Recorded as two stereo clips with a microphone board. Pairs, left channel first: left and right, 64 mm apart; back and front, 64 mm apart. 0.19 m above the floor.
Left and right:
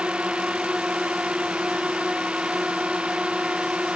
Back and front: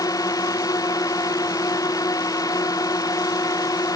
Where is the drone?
165° right.